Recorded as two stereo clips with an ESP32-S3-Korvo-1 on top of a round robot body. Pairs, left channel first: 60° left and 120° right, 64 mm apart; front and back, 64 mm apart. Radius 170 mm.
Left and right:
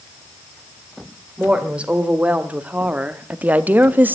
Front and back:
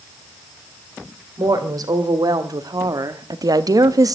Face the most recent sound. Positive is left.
turn(degrees=180)